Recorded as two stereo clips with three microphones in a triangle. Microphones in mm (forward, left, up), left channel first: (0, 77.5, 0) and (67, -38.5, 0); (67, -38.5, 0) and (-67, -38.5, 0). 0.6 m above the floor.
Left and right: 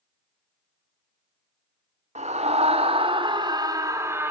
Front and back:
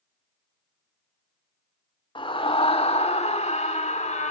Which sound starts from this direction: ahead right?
A scream, at 2.1 s.